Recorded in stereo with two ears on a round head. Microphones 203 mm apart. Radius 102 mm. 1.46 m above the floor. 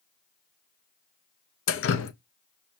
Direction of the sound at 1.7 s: 55° left (ahead or behind).